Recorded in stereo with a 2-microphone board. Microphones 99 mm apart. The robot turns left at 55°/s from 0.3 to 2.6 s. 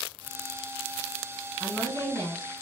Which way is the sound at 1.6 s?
90° left.